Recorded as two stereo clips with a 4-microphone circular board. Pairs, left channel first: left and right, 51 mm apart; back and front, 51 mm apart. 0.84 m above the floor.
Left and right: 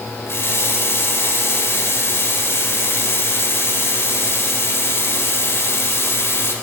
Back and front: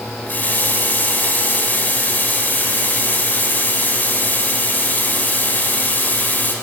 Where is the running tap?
125° left, 2 m.